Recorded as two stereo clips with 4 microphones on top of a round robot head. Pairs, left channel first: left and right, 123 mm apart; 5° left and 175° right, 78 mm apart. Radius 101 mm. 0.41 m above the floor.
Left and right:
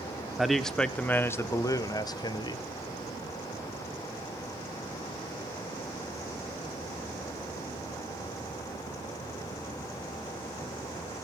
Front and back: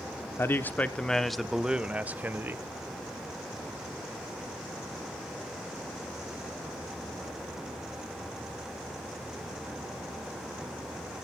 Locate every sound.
0.4 s a man speaking: 5° right, 0.9 m; by 2.7 s 130° left, 1.2 m